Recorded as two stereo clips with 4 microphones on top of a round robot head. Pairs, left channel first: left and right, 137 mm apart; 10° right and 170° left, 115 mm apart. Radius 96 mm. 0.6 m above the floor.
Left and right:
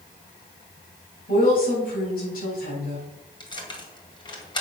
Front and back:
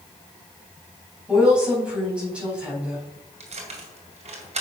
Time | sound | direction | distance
1.3 | a woman speaking | 90° left | 5 m
3.4 | keys jangling | 145° left | 2.5 m